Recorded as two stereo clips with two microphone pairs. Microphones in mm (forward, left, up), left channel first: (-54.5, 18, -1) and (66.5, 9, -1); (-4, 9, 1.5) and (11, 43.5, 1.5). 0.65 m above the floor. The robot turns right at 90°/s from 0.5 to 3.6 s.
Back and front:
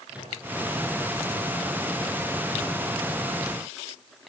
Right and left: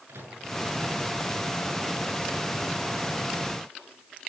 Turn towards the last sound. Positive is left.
turn(degrees=-5)